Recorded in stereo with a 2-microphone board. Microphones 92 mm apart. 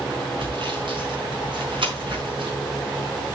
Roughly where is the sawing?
Right.